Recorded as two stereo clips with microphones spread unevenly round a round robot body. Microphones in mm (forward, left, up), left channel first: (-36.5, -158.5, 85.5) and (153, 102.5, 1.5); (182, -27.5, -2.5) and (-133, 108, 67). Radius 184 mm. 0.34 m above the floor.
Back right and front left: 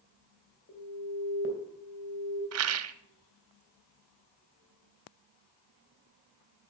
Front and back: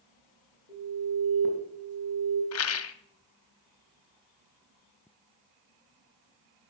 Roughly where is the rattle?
Ahead.